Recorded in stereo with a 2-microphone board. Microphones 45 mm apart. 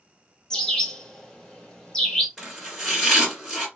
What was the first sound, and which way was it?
A bird, 15° left (ahead or behind).